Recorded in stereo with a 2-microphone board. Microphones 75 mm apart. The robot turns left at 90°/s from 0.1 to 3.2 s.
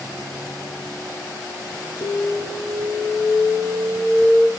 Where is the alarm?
90° left, 1.5 m; by 4.5 s 20° right, 1.5 m.